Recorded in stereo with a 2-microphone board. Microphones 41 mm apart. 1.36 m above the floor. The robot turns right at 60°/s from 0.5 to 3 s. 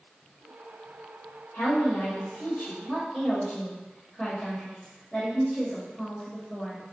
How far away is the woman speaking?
About 1.0 m.